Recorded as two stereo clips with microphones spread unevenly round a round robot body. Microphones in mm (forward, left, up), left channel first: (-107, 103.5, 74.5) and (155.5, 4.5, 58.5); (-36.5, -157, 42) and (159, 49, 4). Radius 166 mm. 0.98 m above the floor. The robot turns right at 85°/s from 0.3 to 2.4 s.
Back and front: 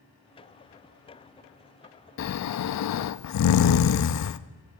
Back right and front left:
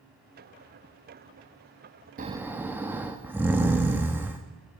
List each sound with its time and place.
2.2 s snoring: 115° left, 0.5 m; by 4.4 s 135° left, 0.5 m